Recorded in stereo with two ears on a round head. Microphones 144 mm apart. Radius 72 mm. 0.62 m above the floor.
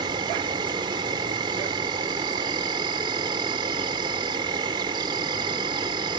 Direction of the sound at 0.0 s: 25° right (ahead or behind).